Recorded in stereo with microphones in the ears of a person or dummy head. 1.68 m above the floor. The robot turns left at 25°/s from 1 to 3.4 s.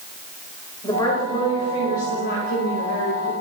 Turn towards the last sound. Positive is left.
turn(degrees=95)